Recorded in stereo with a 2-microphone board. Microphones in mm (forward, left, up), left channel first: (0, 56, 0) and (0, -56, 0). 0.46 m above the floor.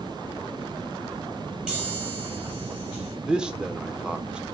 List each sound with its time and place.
1.7 s a chime: 10° right (ahead or behind), 5 m
3.3 s a man speaking: 10° right (ahead or behind), 0.9 m